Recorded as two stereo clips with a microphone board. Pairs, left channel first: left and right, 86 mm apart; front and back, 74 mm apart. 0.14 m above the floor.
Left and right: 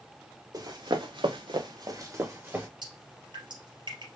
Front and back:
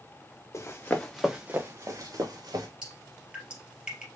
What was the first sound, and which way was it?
Running footsteps, 50° right.